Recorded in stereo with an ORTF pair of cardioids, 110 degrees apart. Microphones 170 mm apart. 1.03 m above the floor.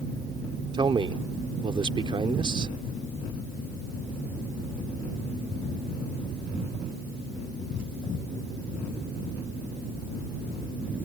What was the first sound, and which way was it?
A man speaking, 30° right.